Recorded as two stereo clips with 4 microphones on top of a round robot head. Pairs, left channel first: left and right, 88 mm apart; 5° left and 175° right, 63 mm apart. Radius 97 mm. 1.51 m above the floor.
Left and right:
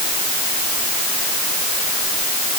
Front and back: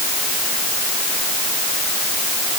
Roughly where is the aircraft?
No aircraft in this recording.